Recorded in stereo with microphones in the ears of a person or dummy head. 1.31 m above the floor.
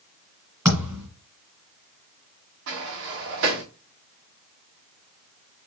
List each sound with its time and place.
0.7 s a thud: 10° right (ahead or behind), 2 m
2.7 s a sliding door: 60° right (ahead or behind), 1.3 m